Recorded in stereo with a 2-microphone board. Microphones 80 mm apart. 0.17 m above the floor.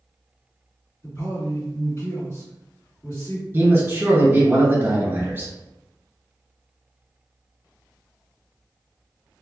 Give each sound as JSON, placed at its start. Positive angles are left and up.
{"t": 1.0, "sound": "a man speaking", "side_deg": 35, "distance_m": 2.0}
{"t": 3.5, "sound": "a man speaking", "side_deg": -25, "distance_m": 1.5}